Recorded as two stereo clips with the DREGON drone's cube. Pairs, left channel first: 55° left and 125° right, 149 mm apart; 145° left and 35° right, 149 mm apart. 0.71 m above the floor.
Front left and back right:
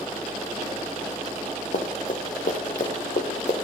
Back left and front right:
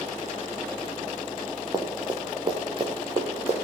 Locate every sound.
1.7 s running footsteps: 30° left, 3.5 m; by 3.5 s 15° left, 3.5 m